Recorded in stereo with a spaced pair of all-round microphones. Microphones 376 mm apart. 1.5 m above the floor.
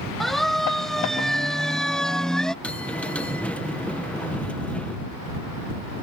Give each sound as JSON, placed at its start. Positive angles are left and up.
{"t": 0.2, "sound": "a siren", "side_deg": 0}
{"t": 2.6, "sound": "a bell", "side_deg": 5}